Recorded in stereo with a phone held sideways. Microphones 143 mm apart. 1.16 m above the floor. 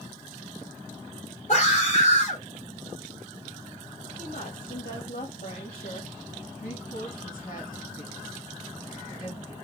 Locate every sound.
1.5 s a scream: 55° left (ahead or behind), 3.5 m
4.2 s a woman speaking: 70° left (ahead or behind), 2.0 m
6.6 s a woman speaking: 75° left (ahead or behind), 2.5 m